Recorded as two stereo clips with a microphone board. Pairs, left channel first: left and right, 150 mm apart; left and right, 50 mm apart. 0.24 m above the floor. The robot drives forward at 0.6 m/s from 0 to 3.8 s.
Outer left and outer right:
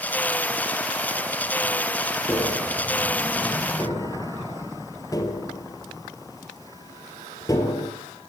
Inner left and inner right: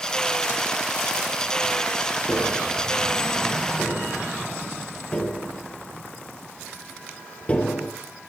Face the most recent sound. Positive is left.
turn(degrees=20)  # may be behind; listen again after turning